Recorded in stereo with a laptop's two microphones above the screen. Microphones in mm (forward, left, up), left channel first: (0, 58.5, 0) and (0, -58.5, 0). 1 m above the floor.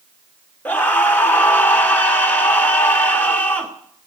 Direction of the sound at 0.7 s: 15° left (ahead or behind).